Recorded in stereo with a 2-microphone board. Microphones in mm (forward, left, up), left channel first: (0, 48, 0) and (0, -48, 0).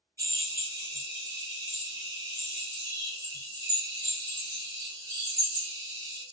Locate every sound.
0.2 s a drill: 35° right (ahead or behind), 1.5 m